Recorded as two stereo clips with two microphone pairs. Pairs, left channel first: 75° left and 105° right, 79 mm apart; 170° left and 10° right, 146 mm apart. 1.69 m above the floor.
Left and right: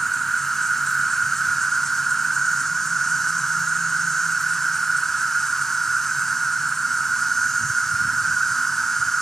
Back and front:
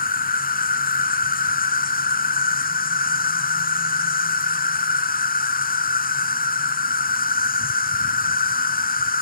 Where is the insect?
160° left.